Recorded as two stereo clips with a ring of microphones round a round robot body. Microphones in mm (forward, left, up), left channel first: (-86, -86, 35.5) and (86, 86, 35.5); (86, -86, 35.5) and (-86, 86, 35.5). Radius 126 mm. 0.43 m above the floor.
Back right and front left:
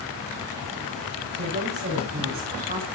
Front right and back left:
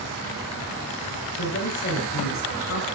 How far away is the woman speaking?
About 5.5 m.